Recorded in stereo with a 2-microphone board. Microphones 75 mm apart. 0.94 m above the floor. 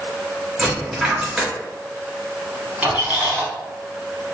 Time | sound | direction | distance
0.6 | a dropped coin | 5° right (ahead or behind) | 1.6 m
2.8 | a squeak | 25° right (ahead or behind) | 0.9 m